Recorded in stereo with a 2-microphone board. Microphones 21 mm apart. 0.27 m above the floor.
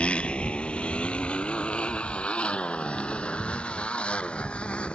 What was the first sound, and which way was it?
A motorcycle, 75° left (ahead or behind).